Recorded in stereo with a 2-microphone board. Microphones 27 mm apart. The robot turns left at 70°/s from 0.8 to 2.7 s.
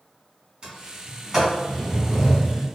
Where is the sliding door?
35° right (ahead or behind), 1.6 m; by 2.7 s 30° left (ahead or behind), 1.6 m.